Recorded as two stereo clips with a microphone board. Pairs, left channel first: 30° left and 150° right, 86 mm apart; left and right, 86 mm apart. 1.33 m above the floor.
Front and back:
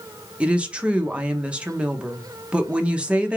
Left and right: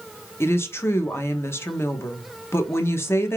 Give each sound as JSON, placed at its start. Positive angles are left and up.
{"t": 0.4, "sound": "a woman speaking", "azimuth_deg": 140, "distance_m": 0.6}